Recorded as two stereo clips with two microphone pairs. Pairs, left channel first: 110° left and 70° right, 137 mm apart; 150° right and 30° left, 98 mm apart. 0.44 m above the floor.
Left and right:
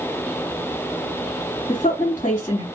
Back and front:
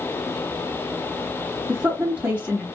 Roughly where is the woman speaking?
Left.